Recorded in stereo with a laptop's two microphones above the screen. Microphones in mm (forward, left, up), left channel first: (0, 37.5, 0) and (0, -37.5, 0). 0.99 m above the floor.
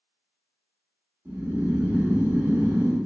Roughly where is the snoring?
Right.